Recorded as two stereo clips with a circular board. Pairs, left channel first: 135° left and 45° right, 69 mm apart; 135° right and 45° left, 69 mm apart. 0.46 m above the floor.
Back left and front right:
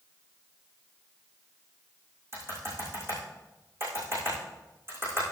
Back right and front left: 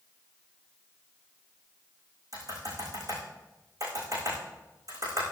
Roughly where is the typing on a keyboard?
Ahead.